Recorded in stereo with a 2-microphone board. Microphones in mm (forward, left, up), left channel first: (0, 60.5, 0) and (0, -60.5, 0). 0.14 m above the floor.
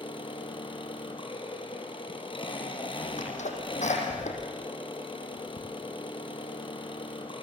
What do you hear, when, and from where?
0.0 s an engine running: 45° left (ahead or behind), 3.5 m
3.2 s a sneeze: 75° left (ahead or behind), 5 m